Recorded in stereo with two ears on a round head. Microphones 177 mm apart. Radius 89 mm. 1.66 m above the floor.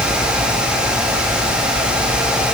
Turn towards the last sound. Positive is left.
No sound to turn to.